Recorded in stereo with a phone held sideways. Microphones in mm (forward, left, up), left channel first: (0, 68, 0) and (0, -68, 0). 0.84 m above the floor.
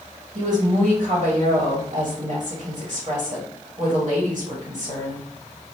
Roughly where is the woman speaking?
Right.